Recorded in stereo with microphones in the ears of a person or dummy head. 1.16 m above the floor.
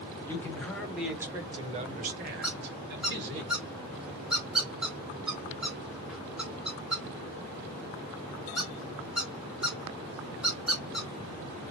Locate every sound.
0.3 s a man speaking: 15° left (ahead or behind), 1.3 m; by 3.4 s 60° right (ahead or behind), 1.4 m
2.4 s a squeak: 5° right (ahead or behind), 0.6 m